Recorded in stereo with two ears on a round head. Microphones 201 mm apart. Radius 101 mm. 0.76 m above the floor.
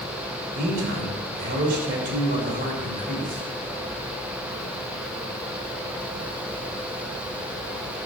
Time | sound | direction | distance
0.6 | a man speaking | 40° right (ahead or behind) | 3.5 m